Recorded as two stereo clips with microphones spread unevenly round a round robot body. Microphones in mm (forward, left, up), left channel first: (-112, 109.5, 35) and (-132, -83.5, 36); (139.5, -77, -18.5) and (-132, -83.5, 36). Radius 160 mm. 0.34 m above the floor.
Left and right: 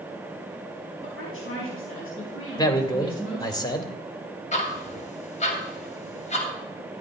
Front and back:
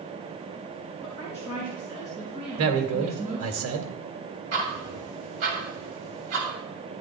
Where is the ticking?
135° left, 2.5 m.